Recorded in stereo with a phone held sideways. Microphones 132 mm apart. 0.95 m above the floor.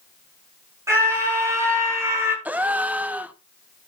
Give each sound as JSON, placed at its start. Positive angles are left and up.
{"t": 0.9, "sound": "a scream", "side_deg": -20, "distance_m": 6.5}
{"t": 2.5, "sound": "a gasp", "side_deg": -10, "distance_m": 0.6}